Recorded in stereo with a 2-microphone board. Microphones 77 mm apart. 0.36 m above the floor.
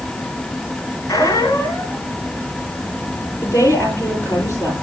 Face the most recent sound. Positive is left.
turn(degrees=35)  # may be behind; listen again after turning